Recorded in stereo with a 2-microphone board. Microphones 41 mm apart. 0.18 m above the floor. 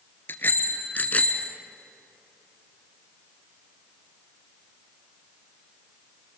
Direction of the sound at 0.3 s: 60° left (ahead or behind).